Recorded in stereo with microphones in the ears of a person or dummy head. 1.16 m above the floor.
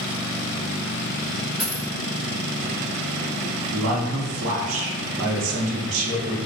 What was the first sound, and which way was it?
A dropped coin, centre (ahead or behind).